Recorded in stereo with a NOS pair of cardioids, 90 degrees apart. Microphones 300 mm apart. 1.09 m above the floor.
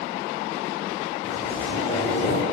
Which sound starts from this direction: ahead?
A zipper, at 1.2 s.